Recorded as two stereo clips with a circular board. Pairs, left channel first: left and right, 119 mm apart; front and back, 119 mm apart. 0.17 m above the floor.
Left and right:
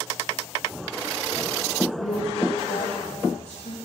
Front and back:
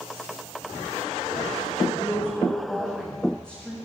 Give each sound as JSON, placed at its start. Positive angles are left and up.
{"t": 1.9, "sound": "a woman speaking", "azimuth_deg": 85, "distance_m": 9.5}